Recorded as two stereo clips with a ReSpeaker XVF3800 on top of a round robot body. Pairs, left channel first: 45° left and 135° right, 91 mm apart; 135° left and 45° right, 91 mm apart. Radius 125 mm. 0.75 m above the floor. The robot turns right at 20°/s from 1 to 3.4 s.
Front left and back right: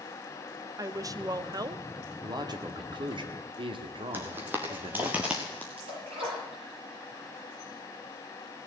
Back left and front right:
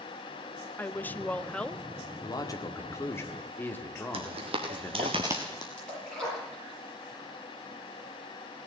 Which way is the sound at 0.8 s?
165° right.